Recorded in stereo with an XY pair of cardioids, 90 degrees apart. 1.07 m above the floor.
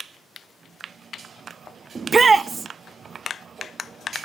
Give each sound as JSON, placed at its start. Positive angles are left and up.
{"t": 1.9, "sound": "a shout", "azimuth_deg": -40, "distance_m": 0.8}